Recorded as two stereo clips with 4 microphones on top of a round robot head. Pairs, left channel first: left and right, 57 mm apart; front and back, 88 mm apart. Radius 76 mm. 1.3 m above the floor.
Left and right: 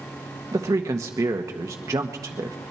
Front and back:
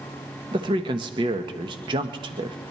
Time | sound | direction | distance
0.5 | a man speaking | 135° right | 1.2 m